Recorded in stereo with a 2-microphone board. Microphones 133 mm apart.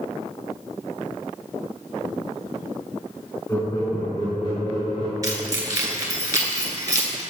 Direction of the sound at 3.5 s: 20° left (ahead or behind).